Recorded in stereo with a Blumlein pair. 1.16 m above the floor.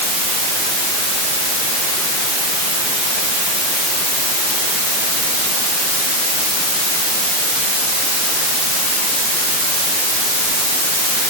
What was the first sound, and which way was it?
Only background noise.